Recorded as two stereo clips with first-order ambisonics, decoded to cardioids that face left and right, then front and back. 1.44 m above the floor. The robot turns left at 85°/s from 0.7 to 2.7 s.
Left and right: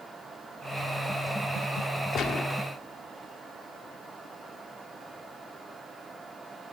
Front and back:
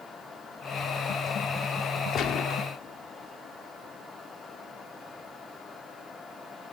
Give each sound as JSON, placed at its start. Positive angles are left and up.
{"t": 2.1, "sound": "a gunshot", "azimuth_deg": 45, "distance_m": 1.7}